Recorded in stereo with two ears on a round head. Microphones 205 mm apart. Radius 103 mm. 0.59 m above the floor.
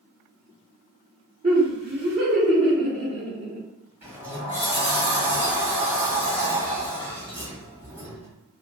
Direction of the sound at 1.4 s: 30° right (ahead or behind).